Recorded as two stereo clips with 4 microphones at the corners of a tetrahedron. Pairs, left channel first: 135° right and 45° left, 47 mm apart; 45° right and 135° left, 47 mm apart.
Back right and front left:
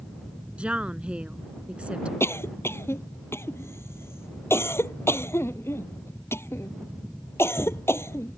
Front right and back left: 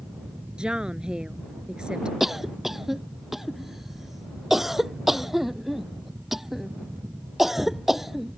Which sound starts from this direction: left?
A woman speaking, at 0.6 s.